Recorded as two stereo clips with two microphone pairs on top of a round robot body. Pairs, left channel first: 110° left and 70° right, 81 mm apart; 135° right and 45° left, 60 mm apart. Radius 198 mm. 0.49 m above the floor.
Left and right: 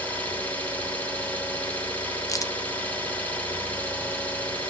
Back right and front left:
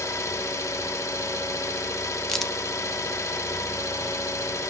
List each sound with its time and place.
0.0 s an engine running: 175° right, 1.2 m
2.3 s a crack: 145° left, 1.0 m